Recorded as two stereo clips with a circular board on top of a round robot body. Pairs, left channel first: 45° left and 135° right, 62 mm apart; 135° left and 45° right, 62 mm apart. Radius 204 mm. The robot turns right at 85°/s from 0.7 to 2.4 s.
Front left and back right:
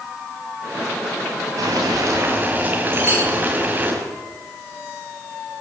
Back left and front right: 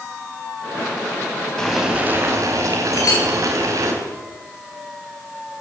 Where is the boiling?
145° right, 4.5 m; by 3.9 s 75° right, 4.5 m.